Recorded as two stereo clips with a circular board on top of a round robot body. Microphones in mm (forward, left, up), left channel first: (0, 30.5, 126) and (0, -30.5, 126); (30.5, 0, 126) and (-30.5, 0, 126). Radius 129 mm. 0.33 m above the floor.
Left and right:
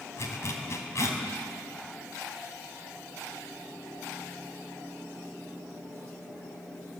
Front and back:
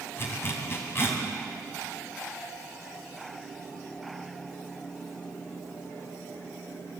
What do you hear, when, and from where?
0.2 s a zipper: 50° left, 3.5 m